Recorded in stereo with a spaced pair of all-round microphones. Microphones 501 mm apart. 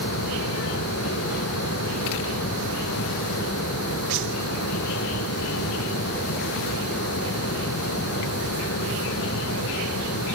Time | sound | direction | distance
0.0 | a fan | 25° left (ahead or behind) | ?